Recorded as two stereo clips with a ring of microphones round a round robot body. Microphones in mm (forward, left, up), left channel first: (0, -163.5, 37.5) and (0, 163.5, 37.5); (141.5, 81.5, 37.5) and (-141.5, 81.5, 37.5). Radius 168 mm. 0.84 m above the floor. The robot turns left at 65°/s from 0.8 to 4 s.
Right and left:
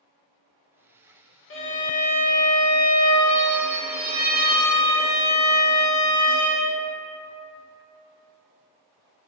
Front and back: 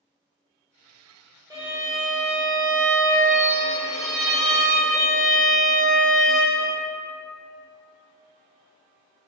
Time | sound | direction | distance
1.5 | a violin | 110° right | 0.6 m